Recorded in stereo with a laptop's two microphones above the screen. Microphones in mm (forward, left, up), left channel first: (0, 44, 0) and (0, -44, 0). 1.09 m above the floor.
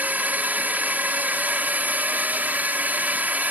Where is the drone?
20° right (ahead or behind).